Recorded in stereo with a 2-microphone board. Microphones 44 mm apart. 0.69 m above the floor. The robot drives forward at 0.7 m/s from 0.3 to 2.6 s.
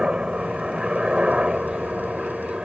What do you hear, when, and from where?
0.0 s a helicopter: 15° right (ahead or behind)